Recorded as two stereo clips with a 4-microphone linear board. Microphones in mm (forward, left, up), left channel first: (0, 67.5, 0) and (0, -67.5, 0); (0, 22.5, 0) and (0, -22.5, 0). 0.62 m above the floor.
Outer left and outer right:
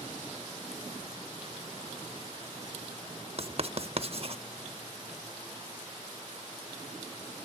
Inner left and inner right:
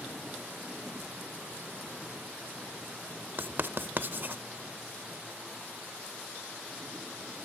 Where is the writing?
50° right (ahead or behind), 0.6 m.